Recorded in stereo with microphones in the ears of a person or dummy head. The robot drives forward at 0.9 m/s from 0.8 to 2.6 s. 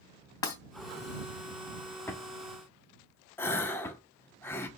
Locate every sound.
0.4 s breaking glass: 20° left (ahead or behind), 3 m
2.1 s a drawer: 15° left (ahead or behind), 1.4 m
3.4 s a gasp: 10° left (ahead or behind), 1.2 m